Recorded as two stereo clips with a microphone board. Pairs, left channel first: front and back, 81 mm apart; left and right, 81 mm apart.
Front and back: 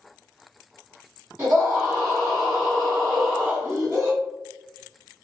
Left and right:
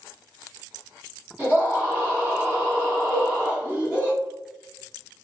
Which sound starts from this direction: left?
A cowbell, at 3.1 s.